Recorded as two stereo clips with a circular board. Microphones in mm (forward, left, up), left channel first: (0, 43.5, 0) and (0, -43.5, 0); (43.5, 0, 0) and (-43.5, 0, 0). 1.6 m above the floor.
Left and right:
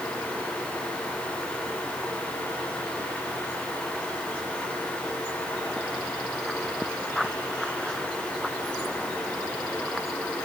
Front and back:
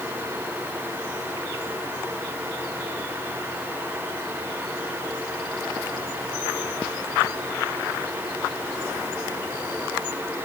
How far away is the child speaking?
No child speaking in this recording.